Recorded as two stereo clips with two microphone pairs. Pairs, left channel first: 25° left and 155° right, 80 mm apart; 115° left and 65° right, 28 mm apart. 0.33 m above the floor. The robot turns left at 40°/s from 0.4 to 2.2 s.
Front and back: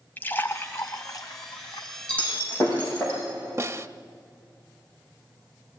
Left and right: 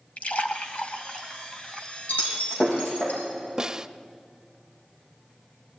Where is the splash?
90° left, 1.4 m; by 1.9 s 30° left, 1.4 m.